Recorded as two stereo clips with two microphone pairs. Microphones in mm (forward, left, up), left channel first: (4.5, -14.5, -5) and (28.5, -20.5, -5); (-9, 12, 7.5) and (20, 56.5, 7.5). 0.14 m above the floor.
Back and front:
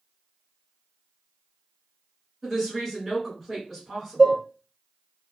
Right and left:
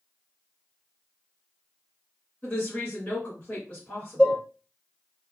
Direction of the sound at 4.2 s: 60° right.